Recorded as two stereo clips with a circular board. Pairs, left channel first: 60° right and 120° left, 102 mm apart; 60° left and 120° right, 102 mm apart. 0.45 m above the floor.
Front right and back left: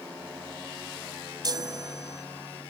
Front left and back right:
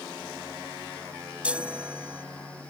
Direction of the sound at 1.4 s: 165° left.